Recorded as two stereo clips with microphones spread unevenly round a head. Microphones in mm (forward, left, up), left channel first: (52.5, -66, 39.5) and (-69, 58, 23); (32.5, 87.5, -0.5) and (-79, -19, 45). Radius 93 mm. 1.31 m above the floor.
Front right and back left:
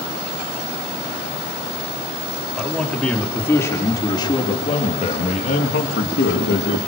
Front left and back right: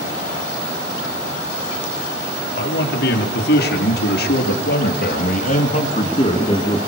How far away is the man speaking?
About 4 m.